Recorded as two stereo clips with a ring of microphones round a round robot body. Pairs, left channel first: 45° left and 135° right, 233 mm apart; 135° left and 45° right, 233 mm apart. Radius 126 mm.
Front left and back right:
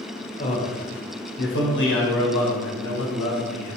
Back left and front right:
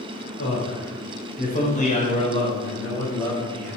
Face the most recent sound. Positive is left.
turn(degrees=55)